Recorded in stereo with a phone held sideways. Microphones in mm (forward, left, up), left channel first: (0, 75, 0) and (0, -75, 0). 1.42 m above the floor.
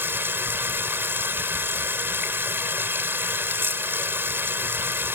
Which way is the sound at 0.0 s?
15° right (ahead or behind).